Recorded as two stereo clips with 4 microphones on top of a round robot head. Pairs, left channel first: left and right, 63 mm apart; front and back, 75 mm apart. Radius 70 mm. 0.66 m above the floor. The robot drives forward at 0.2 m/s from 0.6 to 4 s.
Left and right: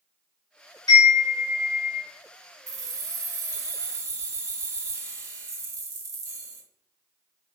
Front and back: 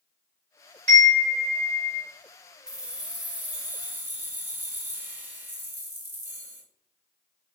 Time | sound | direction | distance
0.9 | a chime | 130° left | 2 m
2.7 | keys jangling | 100° right | 1.0 m